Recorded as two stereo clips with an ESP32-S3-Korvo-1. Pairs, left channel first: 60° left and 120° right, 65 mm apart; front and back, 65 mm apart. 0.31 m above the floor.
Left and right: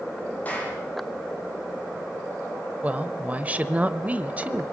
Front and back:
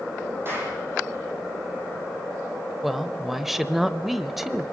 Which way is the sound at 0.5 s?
125° left.